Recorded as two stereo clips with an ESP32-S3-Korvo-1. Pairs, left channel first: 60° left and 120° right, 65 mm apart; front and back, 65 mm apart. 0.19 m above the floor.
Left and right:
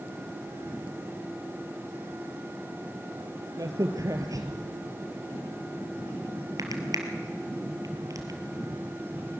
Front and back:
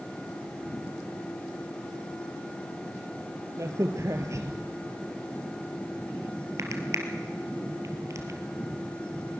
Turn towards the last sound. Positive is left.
turn(degrees=-140)